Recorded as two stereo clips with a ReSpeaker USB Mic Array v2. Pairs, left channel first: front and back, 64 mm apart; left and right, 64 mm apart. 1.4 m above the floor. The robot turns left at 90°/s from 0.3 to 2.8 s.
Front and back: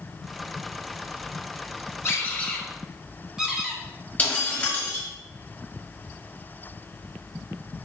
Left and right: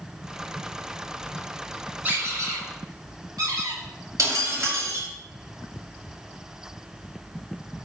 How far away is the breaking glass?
About 3 m.